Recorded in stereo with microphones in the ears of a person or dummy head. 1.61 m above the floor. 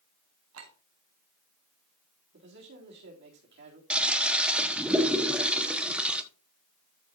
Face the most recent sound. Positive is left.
turn(degrees=-5)  # may be behind; listen again after turning